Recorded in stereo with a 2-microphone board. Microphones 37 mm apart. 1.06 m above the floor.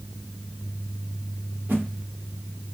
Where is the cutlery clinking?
I don't hear cutlery clinking.